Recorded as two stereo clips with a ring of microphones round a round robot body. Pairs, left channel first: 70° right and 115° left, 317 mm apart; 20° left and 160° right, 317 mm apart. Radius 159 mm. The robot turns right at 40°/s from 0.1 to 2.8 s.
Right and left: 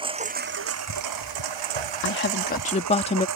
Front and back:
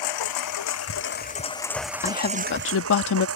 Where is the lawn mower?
40° left; by 3.4 s 155° left.